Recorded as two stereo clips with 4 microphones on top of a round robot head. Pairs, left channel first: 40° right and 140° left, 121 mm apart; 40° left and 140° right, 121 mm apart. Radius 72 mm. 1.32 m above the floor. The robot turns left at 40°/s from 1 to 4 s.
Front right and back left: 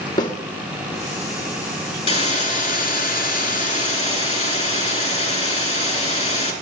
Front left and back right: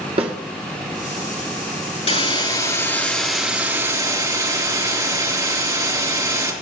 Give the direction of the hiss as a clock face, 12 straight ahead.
12 o'clock.